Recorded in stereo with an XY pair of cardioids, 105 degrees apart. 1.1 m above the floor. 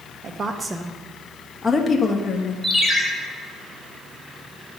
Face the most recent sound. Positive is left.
turn(degrees=-5)